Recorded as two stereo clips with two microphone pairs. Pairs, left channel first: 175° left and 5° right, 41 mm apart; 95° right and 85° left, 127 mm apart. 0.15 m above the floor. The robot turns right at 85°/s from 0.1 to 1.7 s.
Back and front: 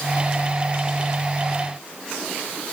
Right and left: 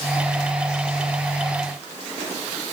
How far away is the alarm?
No alarm in this recording.